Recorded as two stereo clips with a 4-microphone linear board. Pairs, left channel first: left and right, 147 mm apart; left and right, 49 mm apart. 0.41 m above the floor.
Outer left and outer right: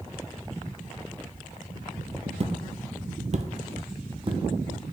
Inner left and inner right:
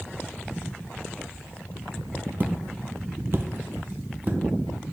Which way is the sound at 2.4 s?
45° right (ahead or behind).